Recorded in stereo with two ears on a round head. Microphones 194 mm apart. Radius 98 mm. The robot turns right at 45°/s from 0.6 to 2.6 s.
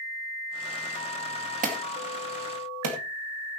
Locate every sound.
1.6 s an alarm: 40° right (ahead or behind), 2.5 m; by 3.0 s 80° right, 2.5 m